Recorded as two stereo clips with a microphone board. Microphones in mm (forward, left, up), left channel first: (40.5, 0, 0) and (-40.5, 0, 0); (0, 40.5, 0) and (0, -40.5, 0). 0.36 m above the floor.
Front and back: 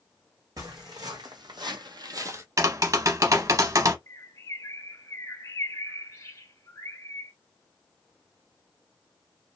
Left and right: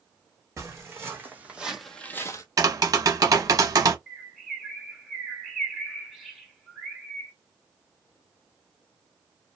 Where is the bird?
5° right, 1.2 m.